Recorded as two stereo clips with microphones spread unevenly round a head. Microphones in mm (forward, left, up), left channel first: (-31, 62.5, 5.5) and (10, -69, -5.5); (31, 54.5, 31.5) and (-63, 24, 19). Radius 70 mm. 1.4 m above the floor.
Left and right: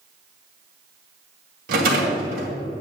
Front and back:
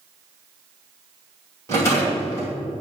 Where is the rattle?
50° right, 2.5 m.